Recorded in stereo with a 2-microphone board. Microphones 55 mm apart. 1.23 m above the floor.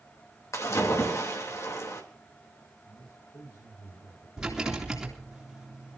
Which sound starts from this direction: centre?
A rattle, at 4.4 s.